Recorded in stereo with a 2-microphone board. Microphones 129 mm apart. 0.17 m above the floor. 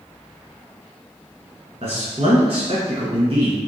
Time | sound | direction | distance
1.8 | a man speaking | 55° right (ahead or behind) | 2.0 m